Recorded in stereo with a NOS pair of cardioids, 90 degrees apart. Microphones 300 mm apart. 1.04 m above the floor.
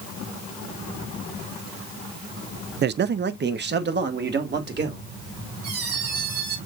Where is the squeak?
60° right, 4 m.